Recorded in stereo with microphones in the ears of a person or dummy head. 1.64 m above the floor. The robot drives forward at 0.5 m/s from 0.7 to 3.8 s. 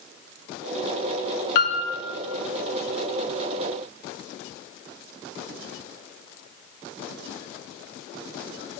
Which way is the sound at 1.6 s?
55° left (ahead or behind).